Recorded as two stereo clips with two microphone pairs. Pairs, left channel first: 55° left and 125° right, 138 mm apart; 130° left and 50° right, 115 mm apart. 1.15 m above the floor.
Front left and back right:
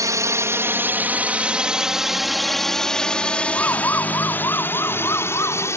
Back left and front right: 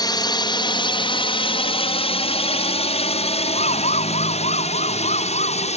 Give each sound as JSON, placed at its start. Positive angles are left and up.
{"t": 0.0, "sound": "a drone", "azimuth_deg": 175}
{"t": 3.5, "sound": "a siren", "azimuth_deg": 130}